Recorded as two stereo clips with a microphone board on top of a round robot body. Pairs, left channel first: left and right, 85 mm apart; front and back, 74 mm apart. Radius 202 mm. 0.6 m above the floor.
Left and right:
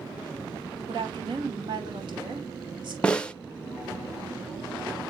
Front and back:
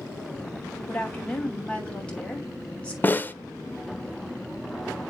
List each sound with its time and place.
0.9 s a woman speaking: 75° right, 3.5 m
3.0 s a snare drum: 25° left, 1.0 m